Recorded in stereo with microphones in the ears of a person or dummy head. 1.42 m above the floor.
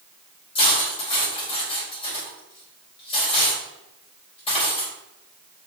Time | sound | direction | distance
0.6 | cutlery clinking | 30° left (ahead or behind) | 4.5 m